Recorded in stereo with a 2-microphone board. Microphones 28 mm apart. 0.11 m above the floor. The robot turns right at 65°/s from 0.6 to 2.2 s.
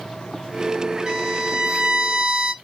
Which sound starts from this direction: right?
A violin, at 1.1 s.